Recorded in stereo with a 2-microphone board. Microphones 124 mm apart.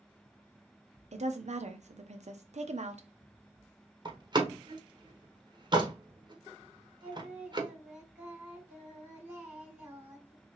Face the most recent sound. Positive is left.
turn(degrees=-15)  # may be behind; listen again after turning